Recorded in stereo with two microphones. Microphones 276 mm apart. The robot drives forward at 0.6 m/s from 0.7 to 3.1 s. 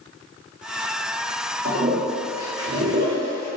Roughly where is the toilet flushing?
Right.